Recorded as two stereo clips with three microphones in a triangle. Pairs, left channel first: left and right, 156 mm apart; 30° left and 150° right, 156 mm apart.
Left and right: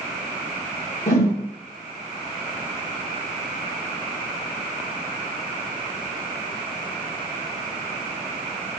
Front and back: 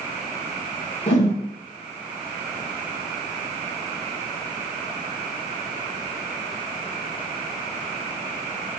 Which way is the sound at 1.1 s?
60° left.